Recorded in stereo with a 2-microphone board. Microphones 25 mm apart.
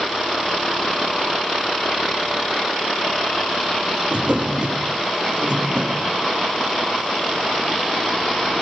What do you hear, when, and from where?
4.1 s a drawer: 40° right (ahead or behind), 6.5 m